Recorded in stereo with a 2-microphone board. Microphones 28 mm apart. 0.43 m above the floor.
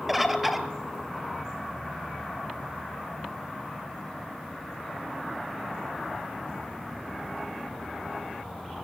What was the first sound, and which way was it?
A bird, 5° right (ahead or behind).